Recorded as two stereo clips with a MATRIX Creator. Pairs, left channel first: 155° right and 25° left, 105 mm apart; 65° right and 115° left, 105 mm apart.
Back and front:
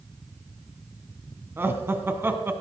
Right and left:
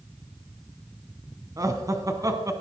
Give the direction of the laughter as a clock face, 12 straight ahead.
9 o'clock.